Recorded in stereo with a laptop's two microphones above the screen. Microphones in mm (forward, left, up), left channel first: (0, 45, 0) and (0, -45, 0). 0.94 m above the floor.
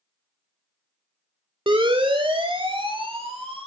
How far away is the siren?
About 2.5 m.